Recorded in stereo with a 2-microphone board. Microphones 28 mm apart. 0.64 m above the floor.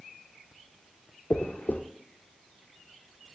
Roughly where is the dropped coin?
Left.